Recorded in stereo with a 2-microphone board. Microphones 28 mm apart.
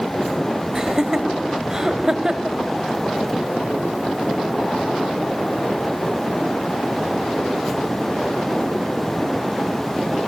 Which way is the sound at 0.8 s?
20° right (ahead or behind).